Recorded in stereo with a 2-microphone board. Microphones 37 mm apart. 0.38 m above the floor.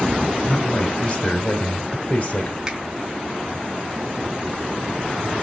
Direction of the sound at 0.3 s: 50° left (ahead or behind).